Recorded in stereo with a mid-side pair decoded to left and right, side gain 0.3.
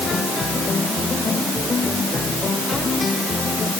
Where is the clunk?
I don't hear a clunk.